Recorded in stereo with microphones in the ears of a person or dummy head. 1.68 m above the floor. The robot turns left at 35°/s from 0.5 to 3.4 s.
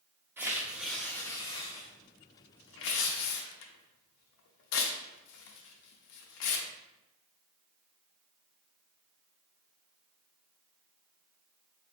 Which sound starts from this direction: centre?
Tearing paper, at 0.4 s.